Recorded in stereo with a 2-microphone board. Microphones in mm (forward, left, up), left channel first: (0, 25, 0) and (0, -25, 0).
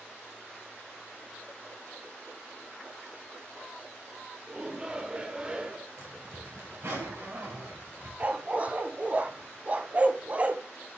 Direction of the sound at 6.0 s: 80° right.